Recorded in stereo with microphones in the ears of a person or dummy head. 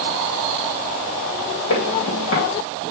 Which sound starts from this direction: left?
Footsteps, at 1.7 s.